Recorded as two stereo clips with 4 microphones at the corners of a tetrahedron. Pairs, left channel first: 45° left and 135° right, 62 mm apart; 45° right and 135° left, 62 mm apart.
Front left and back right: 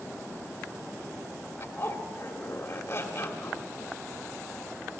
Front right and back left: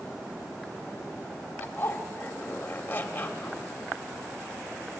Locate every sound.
1.6 s a zipper: 15° left, 1.9 m